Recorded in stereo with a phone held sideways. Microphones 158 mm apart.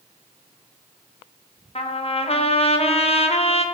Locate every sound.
1.8 s a trumpet: 40° left (ahead or behind), 0.5 m